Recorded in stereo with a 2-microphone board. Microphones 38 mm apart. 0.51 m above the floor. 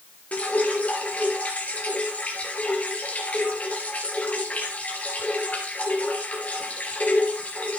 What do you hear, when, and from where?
0.3 s dripping: 35° left (ahead or behind), 2.5 m